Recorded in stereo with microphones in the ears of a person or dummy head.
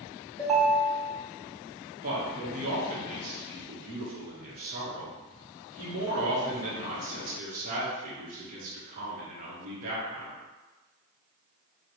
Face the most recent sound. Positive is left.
turn(degrees=-45)  # may be behind; listen again after turning